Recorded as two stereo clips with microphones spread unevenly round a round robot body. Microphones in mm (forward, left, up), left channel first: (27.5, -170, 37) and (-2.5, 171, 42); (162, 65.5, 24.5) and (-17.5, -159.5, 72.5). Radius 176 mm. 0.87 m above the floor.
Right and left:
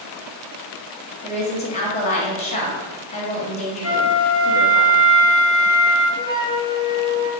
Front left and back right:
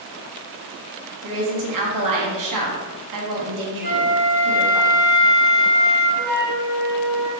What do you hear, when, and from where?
1.2 s a woman speaking: 155° right, 0.8 m
3.8 s a flute: 120° right, 0.6 m
6.2 s a flute: 165° right, 0.6 m